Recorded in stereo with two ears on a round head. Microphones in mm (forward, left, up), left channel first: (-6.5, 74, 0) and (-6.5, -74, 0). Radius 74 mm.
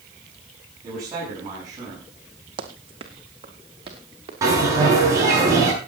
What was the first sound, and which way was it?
A man speaking, 20° right (ahead or behind).